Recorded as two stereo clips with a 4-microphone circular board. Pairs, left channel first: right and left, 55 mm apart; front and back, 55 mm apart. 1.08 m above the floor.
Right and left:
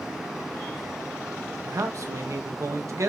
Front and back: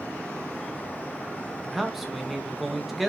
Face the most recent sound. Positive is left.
turn(degrees=90)